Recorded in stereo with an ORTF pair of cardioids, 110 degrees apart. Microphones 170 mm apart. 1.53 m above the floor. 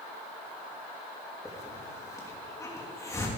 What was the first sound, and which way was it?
A hiss, 20° left.